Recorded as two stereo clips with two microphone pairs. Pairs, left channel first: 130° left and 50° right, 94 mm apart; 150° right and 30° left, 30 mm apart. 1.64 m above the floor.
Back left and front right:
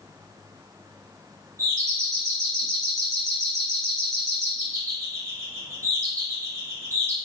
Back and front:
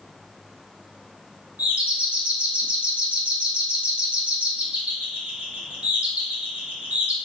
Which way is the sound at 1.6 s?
10° left.